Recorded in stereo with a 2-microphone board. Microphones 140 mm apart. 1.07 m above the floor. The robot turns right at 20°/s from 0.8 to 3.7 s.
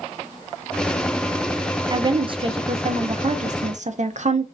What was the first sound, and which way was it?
A woman speaking, 145° right.